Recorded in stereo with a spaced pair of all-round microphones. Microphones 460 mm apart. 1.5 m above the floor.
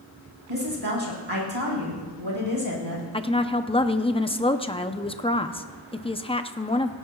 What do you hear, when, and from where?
0.5 s a woman speaking: 85° right, 5 m
3.1 s a woman speaking: 10° left (ahead or behind), 0.6 m